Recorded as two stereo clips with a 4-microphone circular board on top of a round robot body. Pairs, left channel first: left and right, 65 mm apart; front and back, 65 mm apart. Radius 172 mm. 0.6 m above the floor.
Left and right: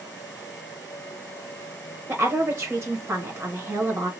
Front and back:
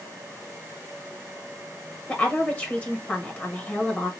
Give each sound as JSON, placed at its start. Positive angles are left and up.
{"t": 2.1, "sound": "a woman speaking", "azimuth_deg": -50, "distance_m": 1.4}